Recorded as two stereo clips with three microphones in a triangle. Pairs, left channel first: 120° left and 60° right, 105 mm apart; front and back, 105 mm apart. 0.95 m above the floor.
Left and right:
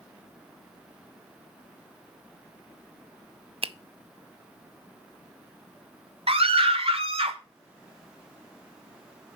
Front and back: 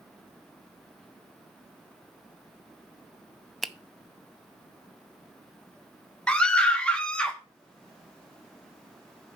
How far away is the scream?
About 1.6 m.